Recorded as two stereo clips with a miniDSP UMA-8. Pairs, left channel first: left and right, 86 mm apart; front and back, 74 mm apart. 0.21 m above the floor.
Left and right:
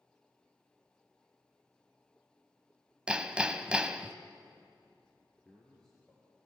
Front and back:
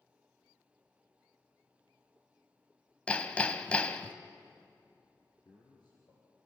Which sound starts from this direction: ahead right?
Hammering, at 3.1 s.